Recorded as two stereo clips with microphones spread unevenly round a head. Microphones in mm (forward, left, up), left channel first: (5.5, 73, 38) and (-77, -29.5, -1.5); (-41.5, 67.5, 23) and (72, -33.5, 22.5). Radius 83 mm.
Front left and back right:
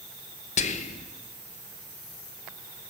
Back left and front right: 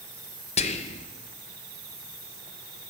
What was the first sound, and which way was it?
Whispering, 90° left.